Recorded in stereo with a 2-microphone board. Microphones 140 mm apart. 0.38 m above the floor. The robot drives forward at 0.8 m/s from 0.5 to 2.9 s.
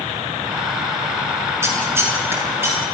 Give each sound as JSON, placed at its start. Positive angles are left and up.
{"t": 1.6, "sound": "scissors", "side_deg": -20, "distance_m": 5.5}